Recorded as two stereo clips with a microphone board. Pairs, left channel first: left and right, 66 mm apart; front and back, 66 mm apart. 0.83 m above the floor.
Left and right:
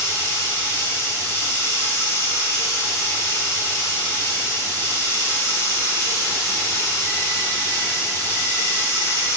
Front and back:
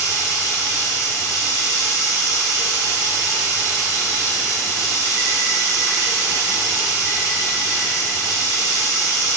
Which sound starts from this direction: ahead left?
Running water, at 0.0 s.